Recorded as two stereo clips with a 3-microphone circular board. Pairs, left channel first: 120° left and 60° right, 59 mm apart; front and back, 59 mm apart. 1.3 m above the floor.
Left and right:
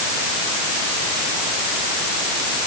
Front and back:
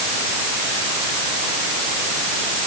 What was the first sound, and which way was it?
Only background noise.